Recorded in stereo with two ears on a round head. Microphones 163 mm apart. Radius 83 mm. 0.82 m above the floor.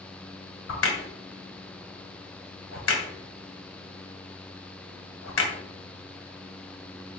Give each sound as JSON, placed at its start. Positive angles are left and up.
{"t": 0.7, "sound": "a crack", "side_deg": 80, "distance_m": 2.5}